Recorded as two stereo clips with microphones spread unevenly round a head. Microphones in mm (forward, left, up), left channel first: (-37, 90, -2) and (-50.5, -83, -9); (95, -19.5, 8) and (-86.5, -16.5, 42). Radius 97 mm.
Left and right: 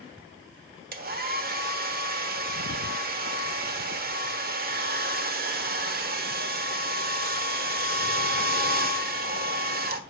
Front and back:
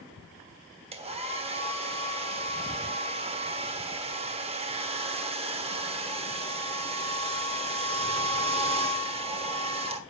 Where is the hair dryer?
130° right, 1.2 m.